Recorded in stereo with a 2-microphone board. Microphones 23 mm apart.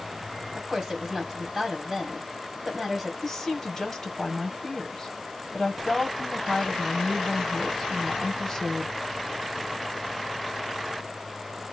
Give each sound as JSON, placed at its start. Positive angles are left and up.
{"t": 0.6, "sound": "a woman speaking", "side_deg": -25, "distance_m": 1.6}
{"t": 3.2, "sound": "a woman speaking", "side_deg": 20, "distance_m": 1.6}